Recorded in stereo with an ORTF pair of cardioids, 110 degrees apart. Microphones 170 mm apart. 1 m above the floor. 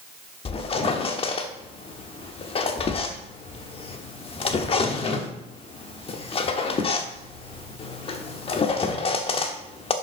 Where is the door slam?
I don't hear a door slam.